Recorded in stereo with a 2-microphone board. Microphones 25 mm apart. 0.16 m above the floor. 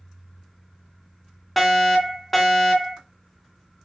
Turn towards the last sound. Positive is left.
turn(degrees=5)  # may be behind; listen again after turning